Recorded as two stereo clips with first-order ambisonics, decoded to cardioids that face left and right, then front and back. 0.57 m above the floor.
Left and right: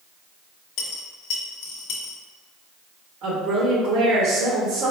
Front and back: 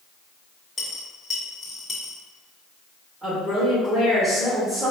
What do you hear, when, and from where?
0.8 s a dropped coin: 75° left, 0.5 m
3.2 s a woman speaking: 100° right, 0.7 m